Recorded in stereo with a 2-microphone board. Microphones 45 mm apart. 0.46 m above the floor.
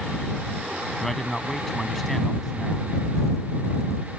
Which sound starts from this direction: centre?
A man speaking, at 1.0 s.